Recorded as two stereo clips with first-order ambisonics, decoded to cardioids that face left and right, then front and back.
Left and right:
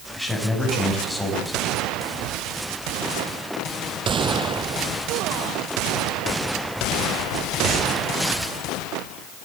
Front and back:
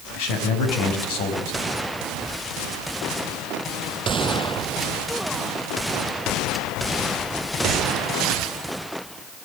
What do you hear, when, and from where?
0.1 s a man speaking: straight ahead, 6 m